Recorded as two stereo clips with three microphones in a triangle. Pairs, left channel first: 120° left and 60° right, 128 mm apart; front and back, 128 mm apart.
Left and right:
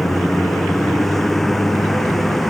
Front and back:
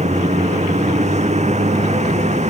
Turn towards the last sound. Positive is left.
turn(degrees=-150)